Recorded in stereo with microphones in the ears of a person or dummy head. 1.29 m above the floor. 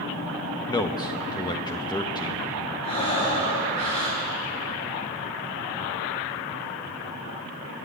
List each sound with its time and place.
0.7 s a man speaking: 20° left (ahead or behind), 1.2 m
2.8 s breathing: 25° left (ahead or behind), 5 m